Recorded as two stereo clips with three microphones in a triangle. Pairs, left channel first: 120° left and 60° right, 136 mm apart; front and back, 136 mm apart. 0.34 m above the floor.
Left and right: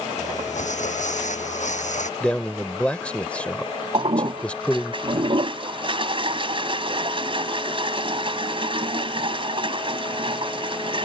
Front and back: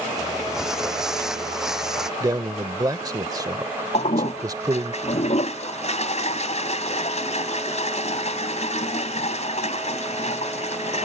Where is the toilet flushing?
20° right.